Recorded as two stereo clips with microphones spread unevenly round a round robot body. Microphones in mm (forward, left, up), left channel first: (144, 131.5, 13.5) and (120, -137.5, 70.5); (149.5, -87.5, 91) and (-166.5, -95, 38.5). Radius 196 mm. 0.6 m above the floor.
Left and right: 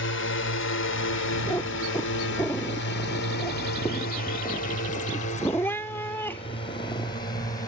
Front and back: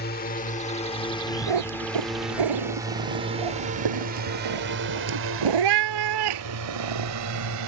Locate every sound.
0.0 s a drone: 65° left; by 7.7 s 160° left
1.5 s a cat meowing: 175° left